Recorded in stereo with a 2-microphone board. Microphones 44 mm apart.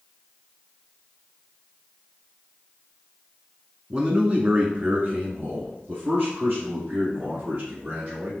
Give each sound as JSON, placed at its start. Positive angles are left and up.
{"t": 3.9, "sound": "a man speaking", "side_deg": -20, "distance_m": 1.1}